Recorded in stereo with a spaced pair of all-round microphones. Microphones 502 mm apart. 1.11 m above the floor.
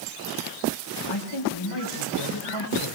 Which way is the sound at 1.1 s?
60° left (ahead or behind).